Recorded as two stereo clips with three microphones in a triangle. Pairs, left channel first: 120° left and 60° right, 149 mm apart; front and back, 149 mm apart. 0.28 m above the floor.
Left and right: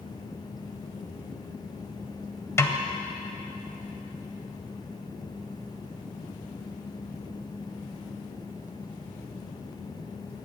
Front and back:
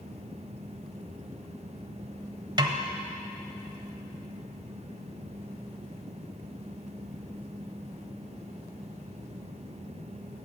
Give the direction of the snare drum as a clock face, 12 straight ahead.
6 o'clock.